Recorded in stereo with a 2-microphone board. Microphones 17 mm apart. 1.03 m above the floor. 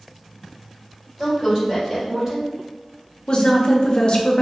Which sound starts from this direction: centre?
A woman speaking, at 1.2 s.